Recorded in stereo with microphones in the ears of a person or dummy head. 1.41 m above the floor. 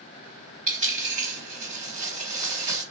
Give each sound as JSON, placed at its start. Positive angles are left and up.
{"t": 0.7, "sound": "a dropped coin", "side_deg": -40, "distance_m": 2.0}